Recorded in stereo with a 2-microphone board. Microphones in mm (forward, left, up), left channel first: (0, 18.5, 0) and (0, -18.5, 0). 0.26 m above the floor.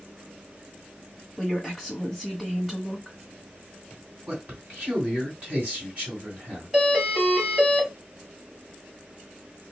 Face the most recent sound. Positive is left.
turn(degrees=-25)  # may be behind; listen again after turning